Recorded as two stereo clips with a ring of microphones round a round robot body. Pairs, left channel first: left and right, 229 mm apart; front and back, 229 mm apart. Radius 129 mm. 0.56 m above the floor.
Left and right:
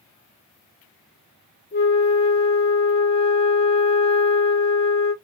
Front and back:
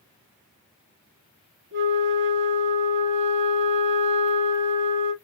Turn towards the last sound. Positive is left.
turn(degrees=145)